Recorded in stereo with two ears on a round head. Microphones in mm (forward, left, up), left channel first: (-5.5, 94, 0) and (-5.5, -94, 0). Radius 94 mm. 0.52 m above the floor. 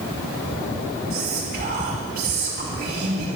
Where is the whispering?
45° right (ahead or behind), 3.5 m.